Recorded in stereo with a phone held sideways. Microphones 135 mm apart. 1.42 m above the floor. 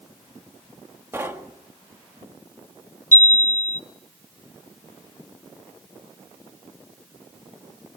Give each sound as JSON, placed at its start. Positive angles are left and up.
{"t": 1.1, "sound": "knocking", "side_deg": -20, "distance_m": 1.9}
{"t": 3.1, "sound": "a chime", "side_deg": 65, "distance_m": 0.9}